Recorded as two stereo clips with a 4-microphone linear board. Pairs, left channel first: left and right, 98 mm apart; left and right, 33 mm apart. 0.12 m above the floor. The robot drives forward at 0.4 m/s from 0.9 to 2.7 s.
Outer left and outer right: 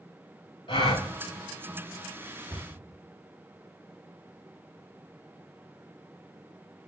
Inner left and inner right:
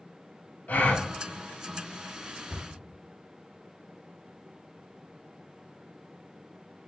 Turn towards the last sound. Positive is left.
turn(degrees=0)  # may be behind; listen again after turning